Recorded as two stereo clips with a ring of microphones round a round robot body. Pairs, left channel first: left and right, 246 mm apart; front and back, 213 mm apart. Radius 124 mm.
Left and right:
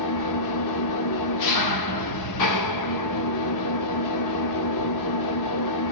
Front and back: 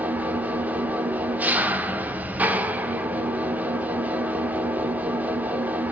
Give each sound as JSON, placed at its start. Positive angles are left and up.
{"t": 0.0, "sound": "an engine running", "azimuth_deg": 95, "distance_m": 0.9}